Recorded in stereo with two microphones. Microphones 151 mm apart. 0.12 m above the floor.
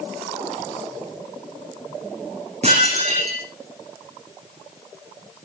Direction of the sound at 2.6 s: 45° right (ahead or behind).